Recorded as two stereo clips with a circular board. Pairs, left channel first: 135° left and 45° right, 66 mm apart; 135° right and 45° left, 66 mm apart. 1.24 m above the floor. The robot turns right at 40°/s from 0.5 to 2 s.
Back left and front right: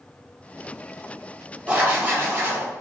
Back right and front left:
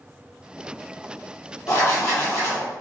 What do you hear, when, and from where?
1.7 s writing: 115° right, 1.3 m; by 2.7 s 100° right, 1.3 m